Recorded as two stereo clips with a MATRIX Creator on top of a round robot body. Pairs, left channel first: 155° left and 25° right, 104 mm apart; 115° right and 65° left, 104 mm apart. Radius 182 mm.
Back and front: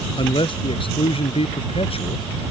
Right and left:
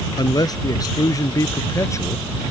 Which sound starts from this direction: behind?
A man speaking, at 0.2 s.